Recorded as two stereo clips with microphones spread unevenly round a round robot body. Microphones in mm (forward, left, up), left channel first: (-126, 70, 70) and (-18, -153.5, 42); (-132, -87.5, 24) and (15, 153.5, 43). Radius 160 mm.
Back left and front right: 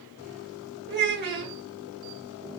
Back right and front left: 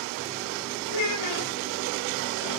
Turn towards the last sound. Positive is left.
turn(degrees=-110)